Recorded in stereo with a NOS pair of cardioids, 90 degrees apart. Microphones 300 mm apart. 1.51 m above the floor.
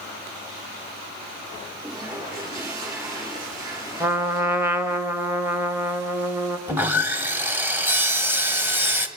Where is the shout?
I don't hear a shout.